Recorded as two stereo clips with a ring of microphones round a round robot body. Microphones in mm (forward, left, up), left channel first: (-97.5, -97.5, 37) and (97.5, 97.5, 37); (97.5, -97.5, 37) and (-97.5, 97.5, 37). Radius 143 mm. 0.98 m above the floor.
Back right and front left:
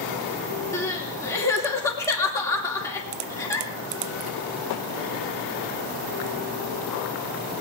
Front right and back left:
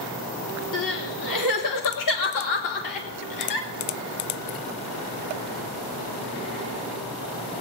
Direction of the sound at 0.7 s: 55° right.